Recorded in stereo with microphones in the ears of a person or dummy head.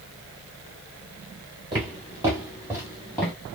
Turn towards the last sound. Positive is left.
turn(degrees=5)  # may be behind; listen again after turning